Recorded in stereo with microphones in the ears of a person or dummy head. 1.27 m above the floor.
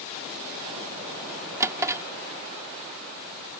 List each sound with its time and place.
1.6 s a drawer: 15° right (ahead or behind)